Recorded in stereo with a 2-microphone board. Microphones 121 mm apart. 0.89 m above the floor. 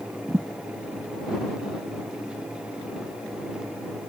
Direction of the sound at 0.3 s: 30° right (ahead or behind).